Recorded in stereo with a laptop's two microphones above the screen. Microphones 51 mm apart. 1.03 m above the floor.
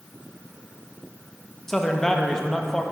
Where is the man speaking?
10° left (ahead or behind), 0.8 m.